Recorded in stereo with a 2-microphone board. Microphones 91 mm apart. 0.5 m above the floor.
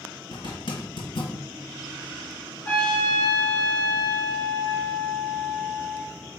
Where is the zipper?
65° left (ahead or behind), 3 m.